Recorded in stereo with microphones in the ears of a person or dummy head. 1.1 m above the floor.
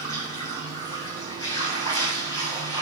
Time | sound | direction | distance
0.0 | running water | 20° left (ahead or behind) | 6 m